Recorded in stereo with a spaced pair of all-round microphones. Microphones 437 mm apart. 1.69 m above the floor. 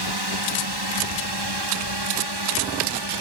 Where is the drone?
70° right (ahead or behind); by 3.2 s 75° right (ahead or behind).